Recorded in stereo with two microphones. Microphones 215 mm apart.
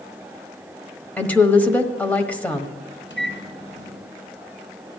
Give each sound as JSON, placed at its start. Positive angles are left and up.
{"t": 1.2, "sound": "a woman speaking", "side_deg": 5, "distance_m": 1.2}
{"t": 3.1, "sound": "a microwave", "side_deg": 65, "distance_m": 2.5}